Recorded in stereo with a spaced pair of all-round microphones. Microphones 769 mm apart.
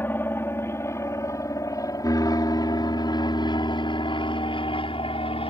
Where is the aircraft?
5° left (ahead or behind).